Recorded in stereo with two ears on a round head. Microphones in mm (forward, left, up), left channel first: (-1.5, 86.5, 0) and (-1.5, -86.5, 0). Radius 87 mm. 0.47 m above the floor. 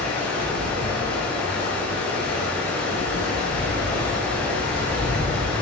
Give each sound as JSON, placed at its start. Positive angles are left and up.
{"t": 0.0, "sound": "running water", "side_deg": 5, "distance_m": 0.9}